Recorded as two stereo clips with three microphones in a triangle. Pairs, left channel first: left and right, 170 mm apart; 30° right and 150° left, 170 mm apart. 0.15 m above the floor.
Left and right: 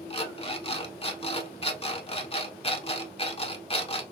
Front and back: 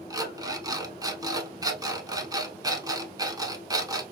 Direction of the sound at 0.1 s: 100° left.